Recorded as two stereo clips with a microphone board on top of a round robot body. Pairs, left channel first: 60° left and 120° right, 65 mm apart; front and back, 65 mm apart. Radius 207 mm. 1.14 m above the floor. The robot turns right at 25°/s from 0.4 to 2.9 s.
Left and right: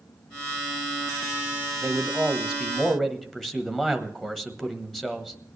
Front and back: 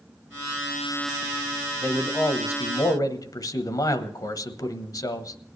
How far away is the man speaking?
About 1.2 m.